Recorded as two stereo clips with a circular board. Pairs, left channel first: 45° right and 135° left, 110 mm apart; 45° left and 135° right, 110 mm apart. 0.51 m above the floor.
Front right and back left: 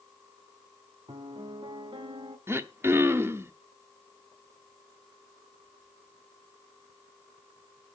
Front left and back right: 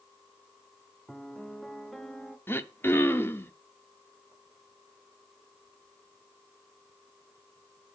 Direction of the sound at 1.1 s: 130° left.